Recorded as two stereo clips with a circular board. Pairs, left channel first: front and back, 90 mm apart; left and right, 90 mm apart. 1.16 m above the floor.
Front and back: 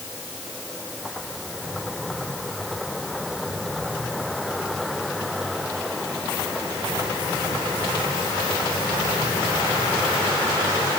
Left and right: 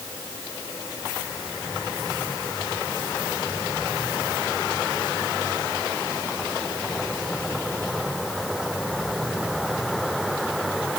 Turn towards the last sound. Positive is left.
No sound to turn to.